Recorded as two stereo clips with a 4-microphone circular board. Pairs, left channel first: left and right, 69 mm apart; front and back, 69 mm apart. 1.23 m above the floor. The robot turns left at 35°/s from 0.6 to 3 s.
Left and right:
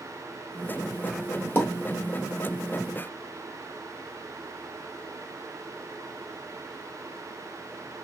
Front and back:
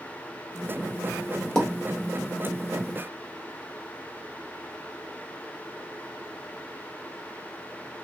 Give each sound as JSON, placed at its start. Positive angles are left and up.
{"t": 1.6, "sound": "a pop", "azimuth_deg": 75, "distance_m": 1.1}